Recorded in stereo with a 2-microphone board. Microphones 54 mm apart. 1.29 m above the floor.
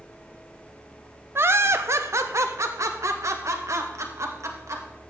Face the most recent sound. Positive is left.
turn(degrees=-70)  # may be behind; listen again after turning